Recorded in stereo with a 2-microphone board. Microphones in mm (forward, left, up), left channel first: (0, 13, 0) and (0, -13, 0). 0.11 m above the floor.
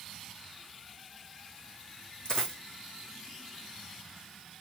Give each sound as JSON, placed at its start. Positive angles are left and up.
{"t": 2.2, "sound": "a dropped coin", "side_deg": 30, "distance_m": 3.0}